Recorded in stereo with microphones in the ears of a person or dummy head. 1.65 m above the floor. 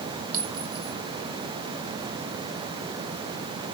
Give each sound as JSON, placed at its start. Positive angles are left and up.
{"t": 0.3, "sound": "a clink", "side_deg": -55, "distance_m": 3.0}